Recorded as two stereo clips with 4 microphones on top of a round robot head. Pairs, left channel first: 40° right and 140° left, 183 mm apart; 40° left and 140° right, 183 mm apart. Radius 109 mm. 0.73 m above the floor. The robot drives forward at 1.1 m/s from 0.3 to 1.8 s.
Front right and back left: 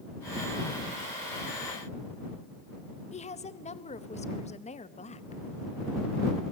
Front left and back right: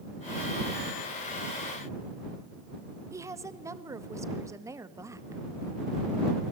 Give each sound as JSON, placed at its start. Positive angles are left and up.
{"t": 3.1, "sound": "a woman speaking", "azimuth_deg": -70, "distance_m": 1.2}